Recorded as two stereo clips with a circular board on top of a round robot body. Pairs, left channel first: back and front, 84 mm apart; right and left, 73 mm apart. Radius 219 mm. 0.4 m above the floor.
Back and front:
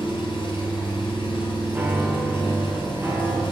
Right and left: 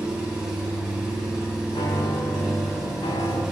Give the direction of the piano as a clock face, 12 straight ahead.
2 o'clock.